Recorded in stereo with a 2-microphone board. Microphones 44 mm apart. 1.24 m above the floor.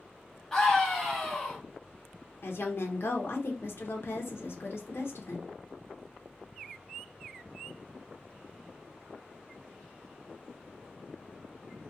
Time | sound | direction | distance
0.5 | a scream | 10° left (ahead or behind) | 1.4 m
2.4 | a woman speaking | 65° left (ahead or behind) | 0.7 m